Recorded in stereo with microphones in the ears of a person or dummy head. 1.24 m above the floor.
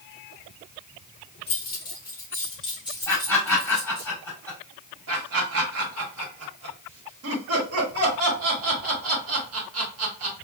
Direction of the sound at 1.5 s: 35° left (ahead or behind).